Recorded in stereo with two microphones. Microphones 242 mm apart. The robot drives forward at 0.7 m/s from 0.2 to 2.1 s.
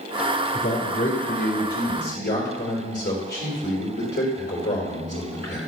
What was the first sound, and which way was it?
A man speaking, 60° left (ahead or behind).